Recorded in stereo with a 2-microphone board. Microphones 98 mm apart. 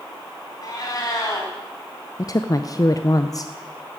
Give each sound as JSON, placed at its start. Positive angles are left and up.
{"t": 0.6, "sound": "a cat meowing", "side_deg": 45, "distance_m": 3.0}
{"t": 2.2, "sound": "a woman speaking", "side_deg": 40, "distance_m": 0.5}